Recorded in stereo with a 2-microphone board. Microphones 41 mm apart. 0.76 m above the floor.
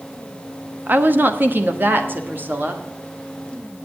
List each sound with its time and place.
0.9 s a woman speaking: 45° right (ahead or behind), 1.0 m; by 2.8 s 50° right (ahead or behind), 2.0 m